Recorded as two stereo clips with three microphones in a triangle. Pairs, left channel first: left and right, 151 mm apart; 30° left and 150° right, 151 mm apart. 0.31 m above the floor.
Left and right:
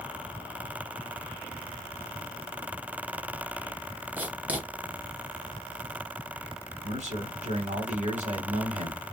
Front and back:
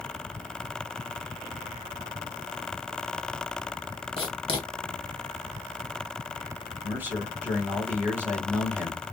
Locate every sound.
4.2 s writing: 15° right, 1.0 m
6.8 s a man speaking: 75° right, 1.5 m